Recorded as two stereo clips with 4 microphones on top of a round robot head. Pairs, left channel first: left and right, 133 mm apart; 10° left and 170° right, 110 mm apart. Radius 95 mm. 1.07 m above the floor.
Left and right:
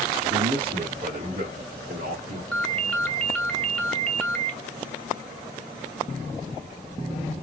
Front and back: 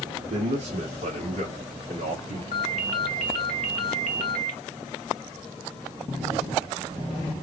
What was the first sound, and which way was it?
A man speaking, 145° right.